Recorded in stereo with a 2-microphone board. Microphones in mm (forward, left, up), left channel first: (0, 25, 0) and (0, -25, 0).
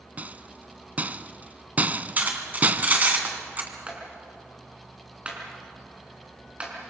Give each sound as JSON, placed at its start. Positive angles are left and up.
{"t": 0.2, "sound": "a rattle", "side_deg": -35, "distance_m": 0.6}
{"t": 2.2, "sound": "cutlery clinking", "side_deg": -35, "distance_m": 2.5}
{"t": 3.9, "sound": "a clap", "side_deg": -20, "distance_m": 5.0}